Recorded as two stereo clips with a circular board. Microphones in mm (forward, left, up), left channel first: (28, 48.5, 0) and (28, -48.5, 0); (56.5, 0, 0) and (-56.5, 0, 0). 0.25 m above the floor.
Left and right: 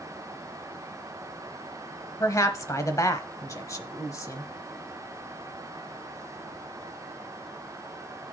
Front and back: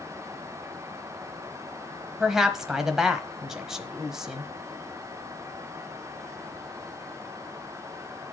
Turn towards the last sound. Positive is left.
turn(degrees=100)